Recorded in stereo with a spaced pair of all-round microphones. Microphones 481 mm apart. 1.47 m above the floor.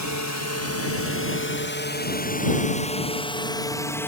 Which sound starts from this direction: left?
A drone, at 0.0 s.